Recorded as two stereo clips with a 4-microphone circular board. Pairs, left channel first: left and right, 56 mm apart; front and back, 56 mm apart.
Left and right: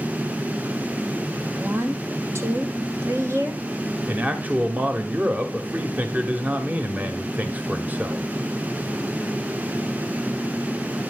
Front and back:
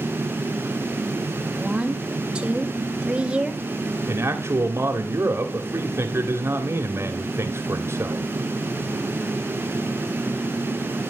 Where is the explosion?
I don't hear an explosion.